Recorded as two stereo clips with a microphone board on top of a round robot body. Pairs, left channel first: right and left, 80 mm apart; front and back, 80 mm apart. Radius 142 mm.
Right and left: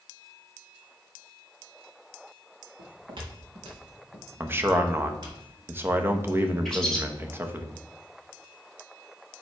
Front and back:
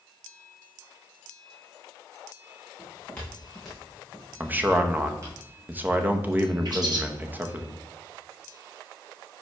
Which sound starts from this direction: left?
Footsteps, at 2.8 s.